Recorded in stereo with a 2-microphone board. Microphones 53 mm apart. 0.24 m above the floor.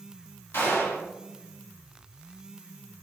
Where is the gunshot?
55° left (ahead or behind), 1.7 m.